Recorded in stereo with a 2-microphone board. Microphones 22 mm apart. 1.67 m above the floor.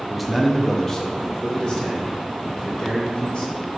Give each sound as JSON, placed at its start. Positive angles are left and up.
{"t": 0.1, "sound": "a man speaking", "side_deg": -5, "distance_m": 0.5}